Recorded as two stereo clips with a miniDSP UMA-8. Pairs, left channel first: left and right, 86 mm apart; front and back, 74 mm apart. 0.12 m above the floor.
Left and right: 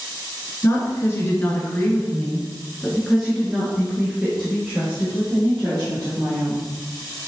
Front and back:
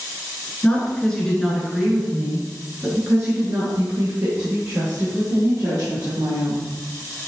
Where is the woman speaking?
65° left, 1.3 m; by 6.7 s 155° right, 2.5 m.